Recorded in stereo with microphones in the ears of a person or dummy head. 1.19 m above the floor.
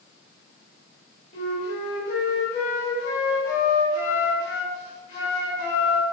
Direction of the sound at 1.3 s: 25° left (ahead or behind).